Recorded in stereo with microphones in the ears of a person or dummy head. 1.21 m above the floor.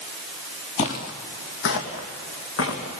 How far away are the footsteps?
About 1.5 m.